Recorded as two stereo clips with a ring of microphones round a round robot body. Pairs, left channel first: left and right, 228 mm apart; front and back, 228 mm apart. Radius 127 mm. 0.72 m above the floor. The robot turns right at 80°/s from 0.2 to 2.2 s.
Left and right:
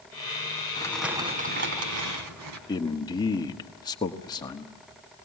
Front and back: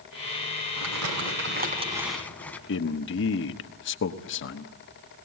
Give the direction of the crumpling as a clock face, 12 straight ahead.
7 o'clock.